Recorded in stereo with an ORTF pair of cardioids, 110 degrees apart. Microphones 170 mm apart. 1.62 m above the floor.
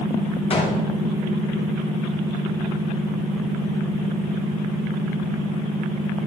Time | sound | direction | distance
0.5 | a gunshot | 35° left | 1.5 m